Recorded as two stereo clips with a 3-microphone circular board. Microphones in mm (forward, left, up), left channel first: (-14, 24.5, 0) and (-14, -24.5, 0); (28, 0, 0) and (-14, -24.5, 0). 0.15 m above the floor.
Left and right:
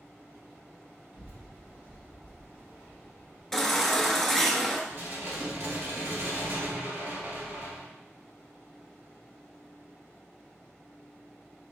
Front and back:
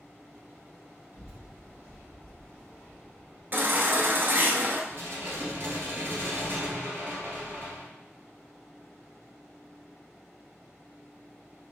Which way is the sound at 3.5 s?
175° left.